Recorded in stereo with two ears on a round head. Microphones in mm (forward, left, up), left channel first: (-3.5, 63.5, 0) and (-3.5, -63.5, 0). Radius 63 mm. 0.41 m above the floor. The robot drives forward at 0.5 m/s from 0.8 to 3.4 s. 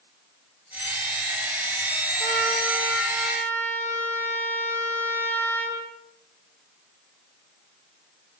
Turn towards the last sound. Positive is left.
turn(degrees=15)  # may be behind; listen again after turning